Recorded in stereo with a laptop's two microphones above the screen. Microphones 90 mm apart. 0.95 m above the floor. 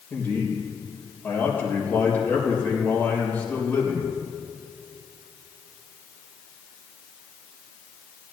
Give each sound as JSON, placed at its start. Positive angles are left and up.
{"t": 0.1, "sound": "a man speaking", "side_deg": 20, "distance_m": 3.5}